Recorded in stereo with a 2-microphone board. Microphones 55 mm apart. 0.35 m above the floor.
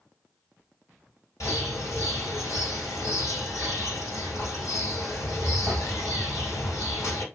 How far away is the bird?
About 1.8 m.